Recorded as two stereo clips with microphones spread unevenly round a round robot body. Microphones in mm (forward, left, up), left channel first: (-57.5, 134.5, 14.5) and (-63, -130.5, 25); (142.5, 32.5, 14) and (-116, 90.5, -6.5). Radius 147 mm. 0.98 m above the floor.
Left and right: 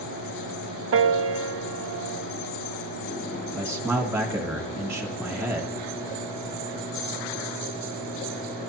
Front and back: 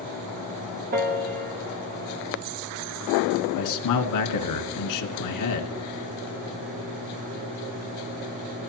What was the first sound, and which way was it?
A piano, 130° right.